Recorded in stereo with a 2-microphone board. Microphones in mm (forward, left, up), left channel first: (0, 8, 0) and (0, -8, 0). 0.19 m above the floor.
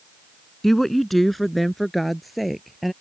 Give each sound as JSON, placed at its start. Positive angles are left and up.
{"t": 0.6, "sound": "a woman speaking", "side_deg": 15}